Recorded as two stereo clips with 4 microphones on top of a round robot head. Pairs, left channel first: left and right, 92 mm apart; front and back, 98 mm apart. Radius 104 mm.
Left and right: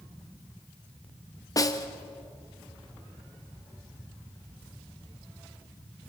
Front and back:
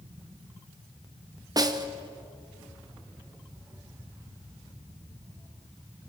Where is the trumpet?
I don't hear a trumpet.